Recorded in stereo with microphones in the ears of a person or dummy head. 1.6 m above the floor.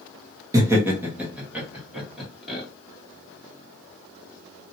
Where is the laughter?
15° right (ahead or behind), 0.9 m; by 2.6 s centre (ahead or behind), 2 m.